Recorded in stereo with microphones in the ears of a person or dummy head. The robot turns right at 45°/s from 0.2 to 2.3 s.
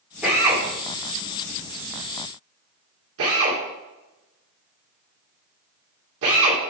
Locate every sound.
0.2 s a drill: 5° right (ahead or behind), 2 m; by 6.6 s 75° right (ahead or behind), 2 m